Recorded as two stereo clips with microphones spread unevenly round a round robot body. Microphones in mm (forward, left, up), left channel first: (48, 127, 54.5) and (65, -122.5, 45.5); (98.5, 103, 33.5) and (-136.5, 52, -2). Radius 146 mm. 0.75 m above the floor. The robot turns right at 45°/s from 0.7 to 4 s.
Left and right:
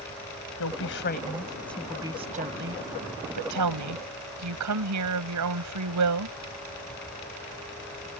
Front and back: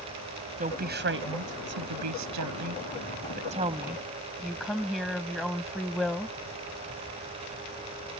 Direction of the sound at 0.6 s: 135° left.